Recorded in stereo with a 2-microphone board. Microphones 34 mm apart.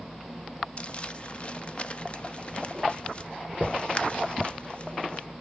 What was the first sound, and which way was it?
Crumpling, 35° left (ahead or behind).